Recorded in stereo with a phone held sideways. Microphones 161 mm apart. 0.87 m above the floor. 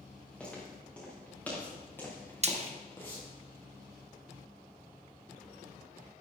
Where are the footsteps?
10° left (ahead or behind), 6.5 m; by 3.2 s 20° left (ahead or behind), 4.5 m.